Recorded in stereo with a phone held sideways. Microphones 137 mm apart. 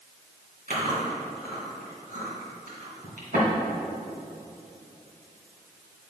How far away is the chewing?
About 2.5 m.